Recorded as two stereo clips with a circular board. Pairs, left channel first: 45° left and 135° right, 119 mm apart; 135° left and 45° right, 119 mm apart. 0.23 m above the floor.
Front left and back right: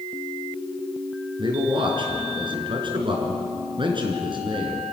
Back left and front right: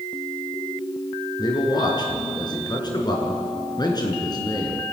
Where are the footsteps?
No footsteps in this recording.